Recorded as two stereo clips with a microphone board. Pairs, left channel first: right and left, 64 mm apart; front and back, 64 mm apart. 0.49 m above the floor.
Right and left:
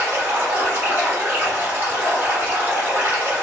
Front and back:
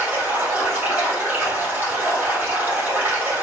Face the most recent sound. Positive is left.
turn(degrees=135)